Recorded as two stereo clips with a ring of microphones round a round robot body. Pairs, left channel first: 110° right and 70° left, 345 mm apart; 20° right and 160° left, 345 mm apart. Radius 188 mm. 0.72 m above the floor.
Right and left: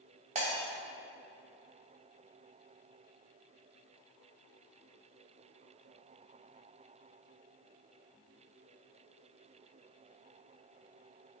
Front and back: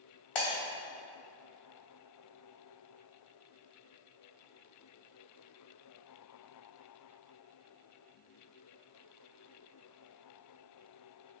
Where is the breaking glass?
5° right, 2.5 m.